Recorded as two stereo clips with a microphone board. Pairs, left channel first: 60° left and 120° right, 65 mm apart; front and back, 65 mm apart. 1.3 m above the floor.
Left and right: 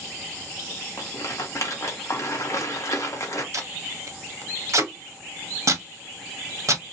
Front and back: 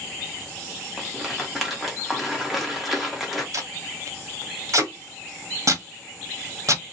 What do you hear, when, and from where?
1.0 s a rattle: 95° left, 0.8 m
3.5 s tape being pulled: 150° right, 0.6 m